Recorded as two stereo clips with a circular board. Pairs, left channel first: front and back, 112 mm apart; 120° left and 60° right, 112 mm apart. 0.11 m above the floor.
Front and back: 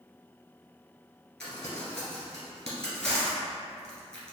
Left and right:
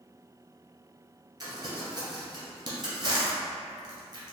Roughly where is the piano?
No piano in this recording.